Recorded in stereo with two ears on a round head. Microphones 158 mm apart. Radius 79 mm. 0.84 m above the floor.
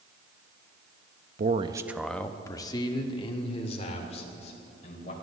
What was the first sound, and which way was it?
A man speaking, 45° right (ahead or behind).